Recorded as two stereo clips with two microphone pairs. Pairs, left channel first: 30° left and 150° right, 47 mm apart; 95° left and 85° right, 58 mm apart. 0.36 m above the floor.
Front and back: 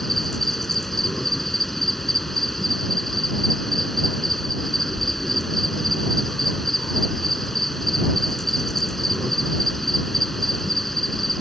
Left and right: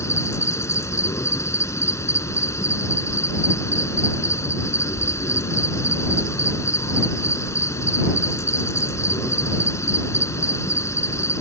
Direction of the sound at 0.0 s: 120° left.